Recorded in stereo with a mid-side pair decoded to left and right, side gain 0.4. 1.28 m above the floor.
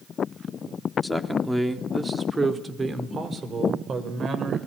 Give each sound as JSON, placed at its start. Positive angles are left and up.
{"t": 1.0, "sound": "a man speaking", "azimuth_deg": 5, "distance_m": 3.5}